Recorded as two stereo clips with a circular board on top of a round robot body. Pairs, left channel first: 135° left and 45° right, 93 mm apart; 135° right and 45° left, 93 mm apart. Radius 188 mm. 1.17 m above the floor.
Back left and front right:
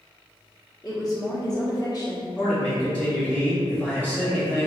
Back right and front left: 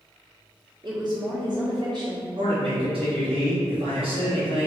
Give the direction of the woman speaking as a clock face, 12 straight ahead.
9 o'clock.